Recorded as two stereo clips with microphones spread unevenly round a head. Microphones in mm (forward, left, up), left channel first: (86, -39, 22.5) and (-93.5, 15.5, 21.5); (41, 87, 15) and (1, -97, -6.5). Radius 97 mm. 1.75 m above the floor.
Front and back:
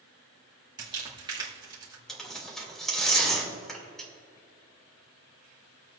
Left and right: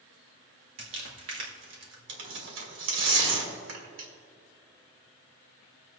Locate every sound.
0.8 s crumpling: 130° right, 2 m
2.1 s tearing paper: 105° right, 2.5 m